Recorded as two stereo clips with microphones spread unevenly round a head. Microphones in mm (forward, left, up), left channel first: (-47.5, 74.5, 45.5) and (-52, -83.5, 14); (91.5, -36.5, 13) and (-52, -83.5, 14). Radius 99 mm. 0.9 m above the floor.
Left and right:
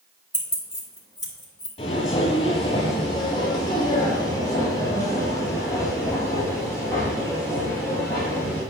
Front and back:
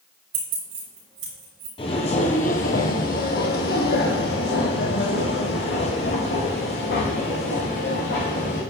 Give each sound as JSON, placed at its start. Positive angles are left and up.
{"t": 0.3, "sound": "keys jangling", "azimuth_deg": 165, "distance_m": 3.5}
{"t": 1.8, "sound": "footsteps", "azimuth_deg": 65, "distance_m": 1.2}